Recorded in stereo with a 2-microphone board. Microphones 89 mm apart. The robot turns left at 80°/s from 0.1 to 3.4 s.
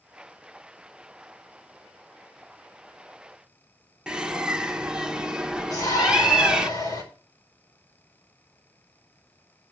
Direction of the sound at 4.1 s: 10° right (ahead or behind).